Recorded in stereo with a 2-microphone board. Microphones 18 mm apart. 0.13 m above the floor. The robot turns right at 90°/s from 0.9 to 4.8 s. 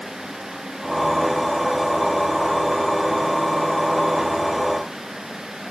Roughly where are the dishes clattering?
No dishes clattering in this recording.